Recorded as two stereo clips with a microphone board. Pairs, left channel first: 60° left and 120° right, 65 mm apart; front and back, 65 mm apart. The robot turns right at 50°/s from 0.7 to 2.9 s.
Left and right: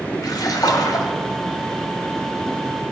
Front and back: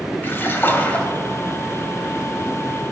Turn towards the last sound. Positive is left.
turn(degrees=165)